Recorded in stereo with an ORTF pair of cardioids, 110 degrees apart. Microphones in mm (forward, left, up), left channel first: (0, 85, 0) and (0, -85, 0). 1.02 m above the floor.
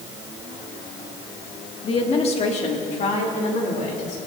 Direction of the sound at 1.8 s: 35° left.